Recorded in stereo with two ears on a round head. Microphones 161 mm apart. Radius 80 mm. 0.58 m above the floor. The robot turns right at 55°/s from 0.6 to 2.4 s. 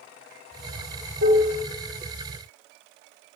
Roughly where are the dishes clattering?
Right.